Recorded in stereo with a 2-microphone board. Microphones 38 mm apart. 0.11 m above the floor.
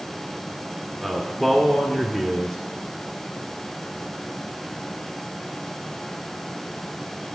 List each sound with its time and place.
1.0 s a man speaking: centre (ahead or behind), 1.3 m